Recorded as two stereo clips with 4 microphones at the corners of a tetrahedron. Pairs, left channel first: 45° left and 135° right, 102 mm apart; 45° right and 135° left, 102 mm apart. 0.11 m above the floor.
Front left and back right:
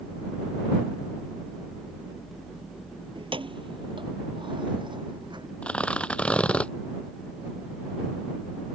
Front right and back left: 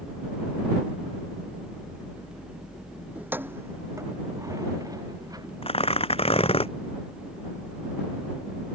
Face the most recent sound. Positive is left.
turn(degrees=-35)